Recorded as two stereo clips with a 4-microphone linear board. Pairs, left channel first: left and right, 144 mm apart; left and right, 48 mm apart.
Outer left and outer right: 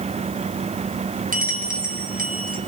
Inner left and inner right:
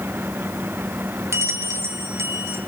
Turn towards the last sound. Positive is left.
turn(degrees=-70)  # may be behind; listen again after turning